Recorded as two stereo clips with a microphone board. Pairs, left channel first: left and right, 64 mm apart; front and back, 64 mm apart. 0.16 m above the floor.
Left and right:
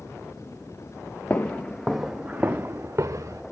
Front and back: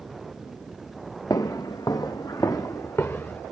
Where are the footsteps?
25° left, 0.8 m; by 3.4 s 55° right, 1.1 m.